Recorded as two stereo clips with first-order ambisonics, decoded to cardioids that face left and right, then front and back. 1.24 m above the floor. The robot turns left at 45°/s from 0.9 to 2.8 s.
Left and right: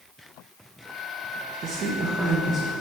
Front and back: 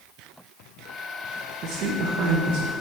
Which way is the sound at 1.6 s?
140° right.